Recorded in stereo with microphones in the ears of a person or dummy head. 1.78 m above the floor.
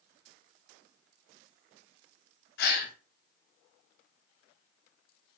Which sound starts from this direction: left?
A gasp, at 2.6 s.